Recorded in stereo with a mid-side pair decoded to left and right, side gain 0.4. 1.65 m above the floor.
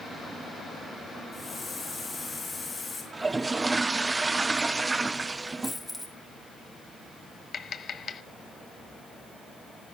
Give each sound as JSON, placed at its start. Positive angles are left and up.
{"t": 1.3, "sound": "a hiss", "azimuth_deg": 30, "distance_m": 7.5}
{"t": 3.1, "sound": "a toilet flushing", "azimuth_deg": -25, "distance_m": 0.6}
{"t": 5.6, "sound": "a dropped coin", "azimuth_deg": 10, "distance_m": 5.5}
{"t": 7.5, "sound": "tapping", "azimuth_deg": 55, "distance_m": 1.0}